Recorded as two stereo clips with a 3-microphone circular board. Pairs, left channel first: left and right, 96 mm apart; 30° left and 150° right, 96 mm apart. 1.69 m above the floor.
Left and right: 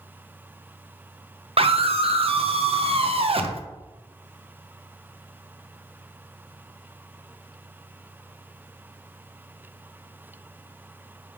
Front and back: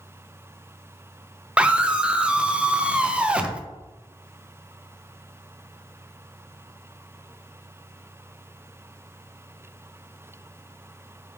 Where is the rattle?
No rattle in this recording.